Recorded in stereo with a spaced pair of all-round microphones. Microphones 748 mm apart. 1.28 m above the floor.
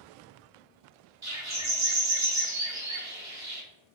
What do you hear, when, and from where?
1.2 s a bird: 25° right (ahead or behind), 0.9 m